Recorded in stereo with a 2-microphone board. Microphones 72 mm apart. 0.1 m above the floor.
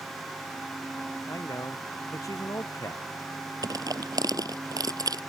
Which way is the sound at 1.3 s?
50° left (ahead or behind).